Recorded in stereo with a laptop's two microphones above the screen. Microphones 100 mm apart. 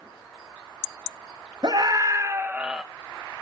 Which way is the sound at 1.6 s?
45° right (ahead or behind).